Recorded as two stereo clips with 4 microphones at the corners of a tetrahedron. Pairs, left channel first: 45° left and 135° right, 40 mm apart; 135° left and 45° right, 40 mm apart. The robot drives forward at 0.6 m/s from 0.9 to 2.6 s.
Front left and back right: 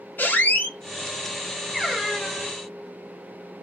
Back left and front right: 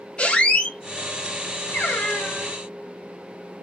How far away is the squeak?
About 0.7 m.